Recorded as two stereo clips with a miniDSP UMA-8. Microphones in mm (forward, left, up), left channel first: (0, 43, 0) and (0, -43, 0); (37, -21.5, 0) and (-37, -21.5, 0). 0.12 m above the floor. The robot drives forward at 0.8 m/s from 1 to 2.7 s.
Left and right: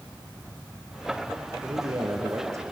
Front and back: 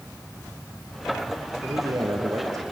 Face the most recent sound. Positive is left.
turn(degrees=-145)